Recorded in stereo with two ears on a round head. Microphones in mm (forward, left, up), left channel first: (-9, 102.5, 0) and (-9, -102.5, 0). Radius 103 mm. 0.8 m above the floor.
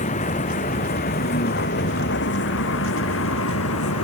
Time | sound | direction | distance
0.0 | a vehicle | 35° left (ahead or behind) | ?